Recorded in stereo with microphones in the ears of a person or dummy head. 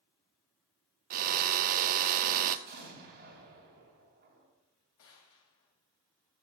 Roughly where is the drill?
Right.